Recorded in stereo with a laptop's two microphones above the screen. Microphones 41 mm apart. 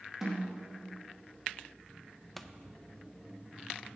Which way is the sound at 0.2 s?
15° right (ahead or behind).